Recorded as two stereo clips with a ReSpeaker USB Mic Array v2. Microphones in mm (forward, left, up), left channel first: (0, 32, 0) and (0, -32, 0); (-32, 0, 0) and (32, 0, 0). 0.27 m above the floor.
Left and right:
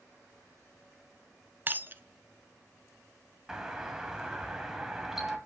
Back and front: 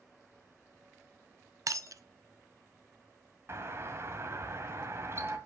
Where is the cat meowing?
I don't hear a cat meowing.